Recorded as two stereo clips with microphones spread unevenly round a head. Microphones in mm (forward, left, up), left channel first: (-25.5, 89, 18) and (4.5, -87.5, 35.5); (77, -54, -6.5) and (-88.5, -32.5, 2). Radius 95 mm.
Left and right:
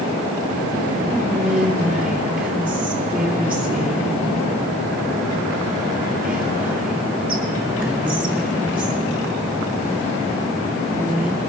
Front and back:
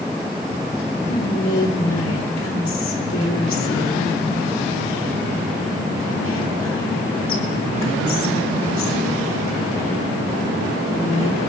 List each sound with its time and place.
1.1 s whispering: 5° left, 2.5 m